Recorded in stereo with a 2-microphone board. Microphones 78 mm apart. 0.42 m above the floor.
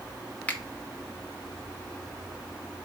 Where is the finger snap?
20° left (ahead or behind), 0.6 m.